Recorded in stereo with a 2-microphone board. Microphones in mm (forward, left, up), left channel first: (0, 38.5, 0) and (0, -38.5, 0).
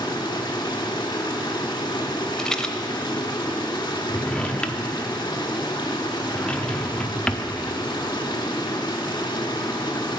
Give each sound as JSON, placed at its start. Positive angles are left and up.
{"t": 0.0, "sound": "running water", "side_deg": 80, "distance_m": 1.3}
{"t": 2.4, "sound": "a rattle", "side_deg": 10, "distance_m": 0.6}
{"t": 4.1, "sound": "a drawer", "side_deg": 15, "distance_m": 0.5}